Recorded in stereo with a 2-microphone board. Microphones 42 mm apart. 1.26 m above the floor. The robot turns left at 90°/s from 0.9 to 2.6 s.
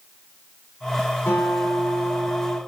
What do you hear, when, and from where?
1.3 s a guitar: 100° left, 4.5 m; by 2.6 s 15° right, 4.5 m